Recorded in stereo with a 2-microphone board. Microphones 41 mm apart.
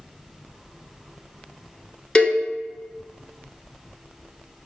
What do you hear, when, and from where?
2.1 s a cowbell: 20° left (ahead or behind), 1.1 m